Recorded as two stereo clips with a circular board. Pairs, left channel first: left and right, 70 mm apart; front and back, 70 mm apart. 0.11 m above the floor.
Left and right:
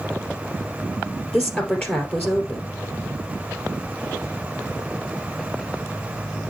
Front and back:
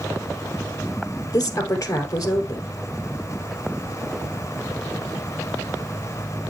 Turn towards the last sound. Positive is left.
turn(degrees=25)